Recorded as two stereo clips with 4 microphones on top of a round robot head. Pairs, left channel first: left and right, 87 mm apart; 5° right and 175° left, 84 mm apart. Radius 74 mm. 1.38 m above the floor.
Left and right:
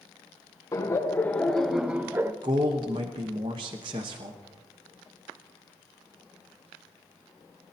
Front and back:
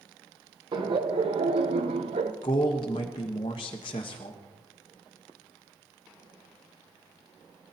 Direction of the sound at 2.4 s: 45° right.